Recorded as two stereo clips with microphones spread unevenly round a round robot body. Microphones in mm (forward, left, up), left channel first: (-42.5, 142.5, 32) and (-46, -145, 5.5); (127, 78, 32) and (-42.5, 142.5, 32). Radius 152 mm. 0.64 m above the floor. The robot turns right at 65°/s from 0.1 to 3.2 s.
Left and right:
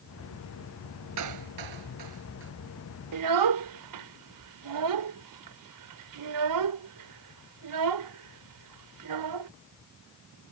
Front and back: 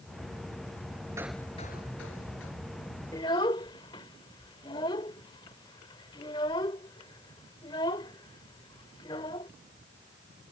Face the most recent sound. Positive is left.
turn(degrees=-95)